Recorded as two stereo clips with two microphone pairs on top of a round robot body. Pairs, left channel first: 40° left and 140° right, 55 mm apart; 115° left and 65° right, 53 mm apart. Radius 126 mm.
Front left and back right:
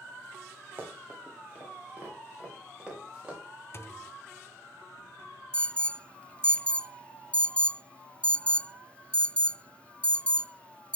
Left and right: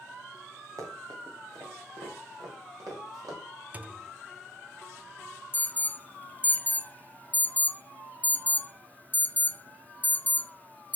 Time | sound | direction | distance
0.8 | running footsteps | 80° right | 3.5 m
3.7 | a thud | 5° right | 0.8 m
5.5 | an alarm | 120° left | 0.6 m